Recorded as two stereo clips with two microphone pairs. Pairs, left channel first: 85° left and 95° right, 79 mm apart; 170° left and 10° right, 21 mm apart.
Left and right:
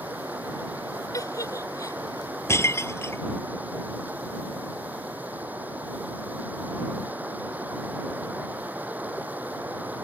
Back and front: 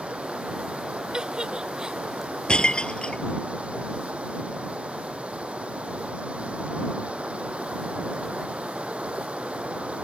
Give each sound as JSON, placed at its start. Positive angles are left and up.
{"t": 0.0, "sound": "running water", "azimuth_deg": -30}
{"t": 1.1, "sound": "a giggle", "azimuth_deg": 35}
{"t": 2.5, "sound": "breaking glass", "azimuth_deg": 135}